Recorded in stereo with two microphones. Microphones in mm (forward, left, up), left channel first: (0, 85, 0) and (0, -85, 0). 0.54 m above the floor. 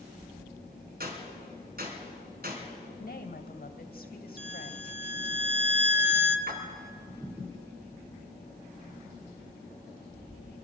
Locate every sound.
1.0 s a gunshot: 65° right (ahead or behind), 3.5 m
3.0 s a woman speaking: 65° left (ahead or behind), 2 m
4.4 s a violin: 40° left (ahead or behind), 1.3 m
6.5 s a splash: 65° right (ahead or behind), 3 m